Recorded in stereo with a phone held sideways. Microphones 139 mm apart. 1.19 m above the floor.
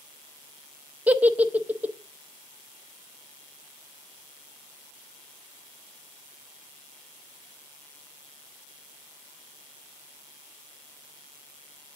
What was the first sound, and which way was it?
A giggle, 10° right (ahead or behind).